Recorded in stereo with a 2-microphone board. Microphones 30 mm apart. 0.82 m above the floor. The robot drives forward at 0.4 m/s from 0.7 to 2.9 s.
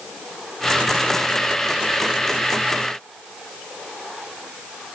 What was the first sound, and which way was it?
Only background noise.